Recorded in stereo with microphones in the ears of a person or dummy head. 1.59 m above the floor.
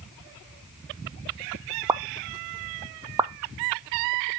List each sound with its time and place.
1.9 s a pop: 20° right (ahead or behind), 0.5 m